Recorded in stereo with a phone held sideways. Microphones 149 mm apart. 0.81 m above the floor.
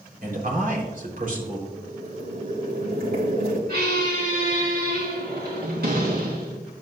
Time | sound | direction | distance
0.2 | a man speaking | 65° right (ahead or behind) | 3.5 m
1.7 | boiling | 85° right | 2.5 m
3.7 | a squeak | 85° right | 3.5 m